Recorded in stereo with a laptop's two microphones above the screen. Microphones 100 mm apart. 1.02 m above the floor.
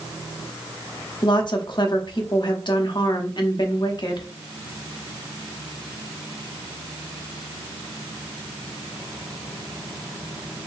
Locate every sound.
1.2 s a woman speaking: 50° left (ahead or behind), 1.0 m